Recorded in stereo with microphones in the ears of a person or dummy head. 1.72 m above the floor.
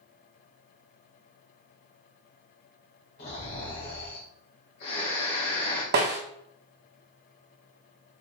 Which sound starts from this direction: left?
Snoring, at 3.2 s.